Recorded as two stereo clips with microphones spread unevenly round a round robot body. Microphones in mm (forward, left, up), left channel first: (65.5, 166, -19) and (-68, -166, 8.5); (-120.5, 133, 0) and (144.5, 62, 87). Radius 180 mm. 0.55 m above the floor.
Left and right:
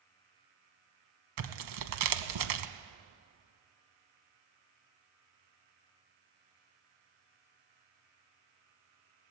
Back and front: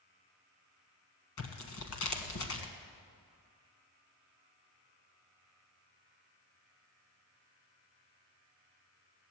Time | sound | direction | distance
1.4 | tearing paper | 140° right | 1.1 m